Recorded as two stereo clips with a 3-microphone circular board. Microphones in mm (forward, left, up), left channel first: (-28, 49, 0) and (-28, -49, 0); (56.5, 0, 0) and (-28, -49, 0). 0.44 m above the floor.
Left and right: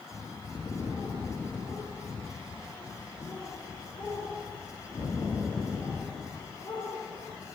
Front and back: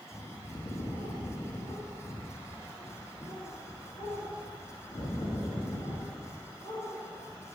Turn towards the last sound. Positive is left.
turn(degrees=35)